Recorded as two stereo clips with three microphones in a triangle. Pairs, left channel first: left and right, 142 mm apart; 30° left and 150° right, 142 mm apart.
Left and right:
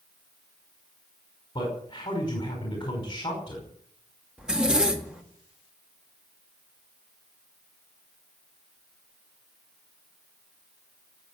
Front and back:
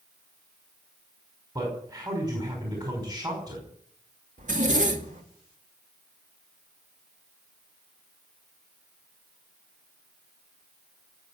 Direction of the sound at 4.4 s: 175° right.